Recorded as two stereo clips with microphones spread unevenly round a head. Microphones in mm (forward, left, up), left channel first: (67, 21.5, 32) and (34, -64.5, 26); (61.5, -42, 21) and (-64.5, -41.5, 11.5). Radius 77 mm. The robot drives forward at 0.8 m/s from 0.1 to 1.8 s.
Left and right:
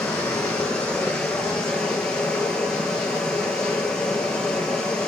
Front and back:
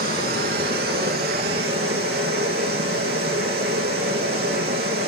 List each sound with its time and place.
0.0 s running water: 150° left, 5 m; by 5.1 s 155° left, 6 m